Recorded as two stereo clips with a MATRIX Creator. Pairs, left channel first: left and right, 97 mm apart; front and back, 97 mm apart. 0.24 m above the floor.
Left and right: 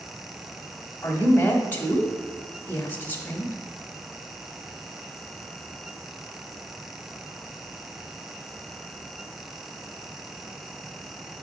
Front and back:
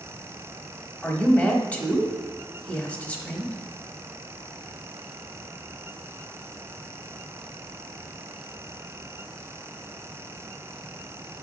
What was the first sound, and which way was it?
A woman speaking, 55° left.